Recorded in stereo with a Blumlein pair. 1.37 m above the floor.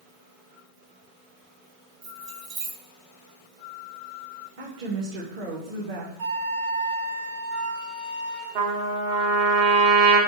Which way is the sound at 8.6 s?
50° right.